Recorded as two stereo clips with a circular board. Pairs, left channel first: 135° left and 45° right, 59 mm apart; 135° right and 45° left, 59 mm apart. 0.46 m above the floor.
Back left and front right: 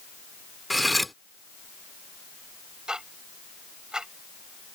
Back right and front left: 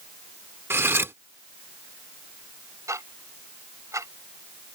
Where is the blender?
No blender in this recording.